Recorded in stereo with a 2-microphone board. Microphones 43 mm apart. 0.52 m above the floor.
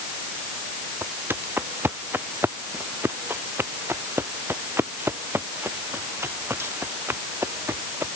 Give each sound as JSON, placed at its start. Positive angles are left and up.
{"t": 1.0, "sound": "footsteps", "side_deg": -55}